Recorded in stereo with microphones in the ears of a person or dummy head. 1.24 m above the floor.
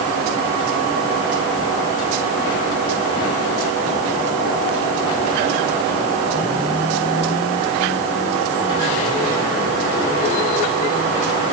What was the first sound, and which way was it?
Only background noise.